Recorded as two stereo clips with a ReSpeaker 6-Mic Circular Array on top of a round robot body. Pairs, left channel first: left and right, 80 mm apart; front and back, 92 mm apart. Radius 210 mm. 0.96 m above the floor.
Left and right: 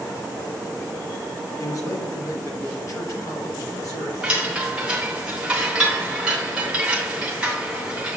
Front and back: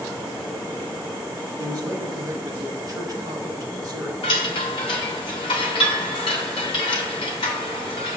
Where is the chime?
15° right, 0.7 m.